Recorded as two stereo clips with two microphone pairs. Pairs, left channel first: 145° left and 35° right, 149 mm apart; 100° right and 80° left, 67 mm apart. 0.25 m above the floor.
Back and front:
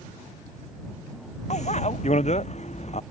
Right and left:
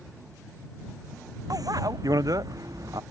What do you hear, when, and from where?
1.5 s a bicycle bell: 105° left